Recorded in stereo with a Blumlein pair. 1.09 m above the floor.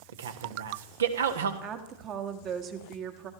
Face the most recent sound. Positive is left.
turn(degrees=-35)